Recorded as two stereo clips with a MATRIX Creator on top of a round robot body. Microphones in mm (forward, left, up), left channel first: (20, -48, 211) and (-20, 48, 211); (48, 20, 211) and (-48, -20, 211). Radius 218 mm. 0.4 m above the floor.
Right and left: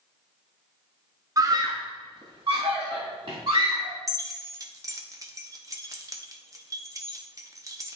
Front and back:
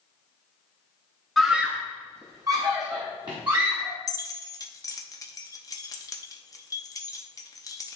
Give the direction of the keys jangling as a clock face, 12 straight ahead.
10 o'clock.